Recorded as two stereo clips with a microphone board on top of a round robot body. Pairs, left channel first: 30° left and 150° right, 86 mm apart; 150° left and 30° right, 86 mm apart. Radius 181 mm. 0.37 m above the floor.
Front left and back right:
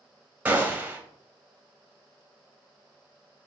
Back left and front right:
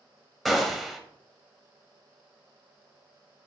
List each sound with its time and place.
0.5 s a gunshot: 120° right, 1.0 m